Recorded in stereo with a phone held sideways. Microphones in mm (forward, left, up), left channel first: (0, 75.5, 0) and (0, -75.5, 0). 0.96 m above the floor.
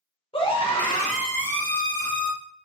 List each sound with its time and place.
0.3 s a scream: 35° left (ahead or behind), 0.9 m; by 2.3 s 10° left (ahead or behind), 1.9 m